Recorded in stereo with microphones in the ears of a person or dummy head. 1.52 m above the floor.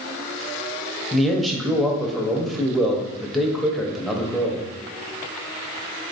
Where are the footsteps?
I don't hear footsteps.